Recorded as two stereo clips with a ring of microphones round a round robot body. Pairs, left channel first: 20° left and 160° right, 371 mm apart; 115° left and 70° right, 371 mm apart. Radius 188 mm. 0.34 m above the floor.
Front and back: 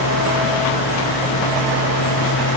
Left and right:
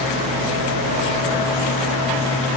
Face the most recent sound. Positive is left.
No sound to turn to.